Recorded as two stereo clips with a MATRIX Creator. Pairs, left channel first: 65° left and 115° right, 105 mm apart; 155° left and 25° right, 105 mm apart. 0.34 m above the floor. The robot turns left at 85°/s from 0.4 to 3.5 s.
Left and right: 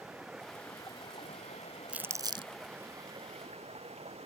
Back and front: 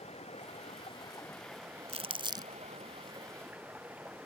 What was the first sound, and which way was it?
Running water, 165° left.